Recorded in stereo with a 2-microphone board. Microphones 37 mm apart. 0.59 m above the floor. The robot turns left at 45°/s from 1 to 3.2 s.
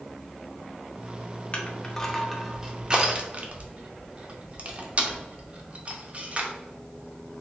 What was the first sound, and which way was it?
Crushing, 35° left (ahead or behind).